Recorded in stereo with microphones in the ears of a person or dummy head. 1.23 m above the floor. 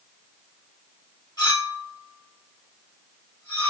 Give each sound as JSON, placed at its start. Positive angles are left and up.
{"t": 1.4, "sound": "a clink", "side_deg": 20, "distance_m": 2.0}